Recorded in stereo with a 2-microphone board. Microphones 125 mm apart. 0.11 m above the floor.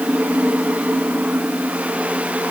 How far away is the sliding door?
No sliding door in this recording.